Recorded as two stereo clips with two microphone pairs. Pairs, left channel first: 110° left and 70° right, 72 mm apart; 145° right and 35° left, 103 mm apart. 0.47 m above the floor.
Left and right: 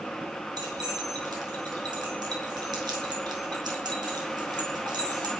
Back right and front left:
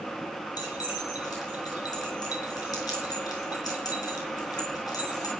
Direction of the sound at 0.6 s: 90° right.